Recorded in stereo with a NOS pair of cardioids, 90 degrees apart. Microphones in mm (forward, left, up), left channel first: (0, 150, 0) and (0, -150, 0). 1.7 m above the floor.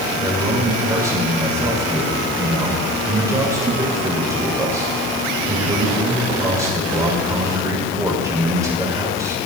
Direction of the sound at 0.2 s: 10° right.